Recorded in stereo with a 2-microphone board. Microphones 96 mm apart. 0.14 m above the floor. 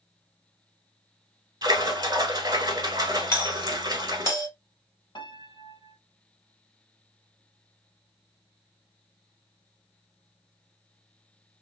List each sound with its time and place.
1.6 s a splash: 45° right (ahead or behind), 0.9 m
3.3 s a doorbell: 30° left (ahead or behind), 1.7 m
5.2 s a piano: 50° left (ahead or behind), 0.6 m